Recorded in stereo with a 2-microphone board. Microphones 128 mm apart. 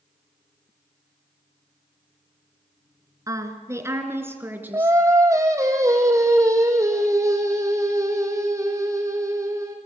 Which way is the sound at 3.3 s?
25° right (ahead or behind).